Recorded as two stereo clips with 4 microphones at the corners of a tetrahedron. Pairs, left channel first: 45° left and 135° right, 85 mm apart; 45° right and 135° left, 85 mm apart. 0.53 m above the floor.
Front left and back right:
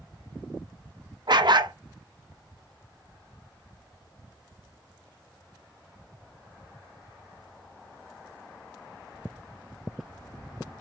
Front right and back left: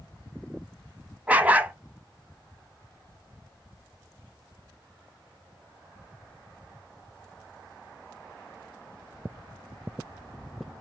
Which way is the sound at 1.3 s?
155° right.